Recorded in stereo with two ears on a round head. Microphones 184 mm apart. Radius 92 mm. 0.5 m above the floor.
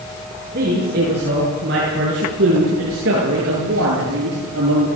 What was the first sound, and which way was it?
A man speaking, 40° right (ahead or behind).